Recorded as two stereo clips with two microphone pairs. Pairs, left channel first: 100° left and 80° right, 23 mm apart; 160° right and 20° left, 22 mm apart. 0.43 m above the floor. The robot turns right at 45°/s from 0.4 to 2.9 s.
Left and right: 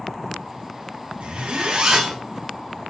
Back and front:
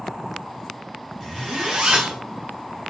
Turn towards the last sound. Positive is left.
turn(degrees=25)